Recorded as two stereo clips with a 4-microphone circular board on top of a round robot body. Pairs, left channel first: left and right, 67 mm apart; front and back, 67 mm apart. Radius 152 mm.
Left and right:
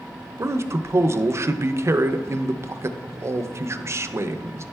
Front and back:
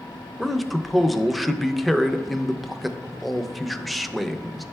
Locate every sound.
0.4 s a man speaking: 90° right, 0.6 m